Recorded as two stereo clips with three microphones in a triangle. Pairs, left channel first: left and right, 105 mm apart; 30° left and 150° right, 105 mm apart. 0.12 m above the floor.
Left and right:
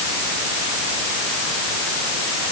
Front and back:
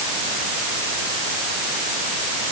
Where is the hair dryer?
No hair dryer in this recording.